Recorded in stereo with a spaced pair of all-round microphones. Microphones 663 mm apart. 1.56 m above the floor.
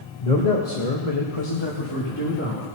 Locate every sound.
0.2 s a man speaking: 70° left (ahead or behind), 1.4 m; by 2.7 s 20° left (ahead or behind), 2.5 m